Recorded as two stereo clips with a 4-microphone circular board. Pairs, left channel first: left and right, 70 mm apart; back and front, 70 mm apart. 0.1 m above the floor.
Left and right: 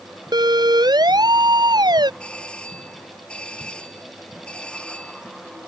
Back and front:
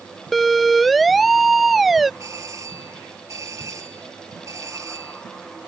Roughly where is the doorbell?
Ahead.